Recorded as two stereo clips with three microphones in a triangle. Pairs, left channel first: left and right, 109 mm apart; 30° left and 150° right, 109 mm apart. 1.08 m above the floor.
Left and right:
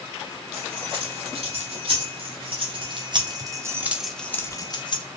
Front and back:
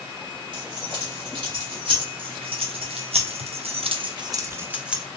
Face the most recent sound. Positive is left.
turn(degrees=130)